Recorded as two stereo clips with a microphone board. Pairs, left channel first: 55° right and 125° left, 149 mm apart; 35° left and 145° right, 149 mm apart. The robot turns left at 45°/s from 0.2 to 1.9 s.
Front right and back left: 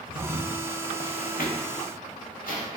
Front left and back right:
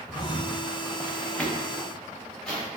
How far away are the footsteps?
About 0.8 m.